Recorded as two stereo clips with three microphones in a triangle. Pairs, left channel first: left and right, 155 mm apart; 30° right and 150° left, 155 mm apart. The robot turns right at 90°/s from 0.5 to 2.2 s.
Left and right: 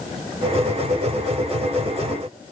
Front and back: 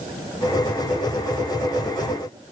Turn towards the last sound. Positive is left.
No sound to turn to.